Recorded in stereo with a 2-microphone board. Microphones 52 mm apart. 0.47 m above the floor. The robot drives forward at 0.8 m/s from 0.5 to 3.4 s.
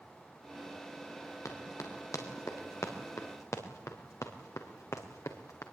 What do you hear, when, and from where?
1.4 s running footsteps: 85° left, 5 m; by 5.6 s 80° left, 3.5 m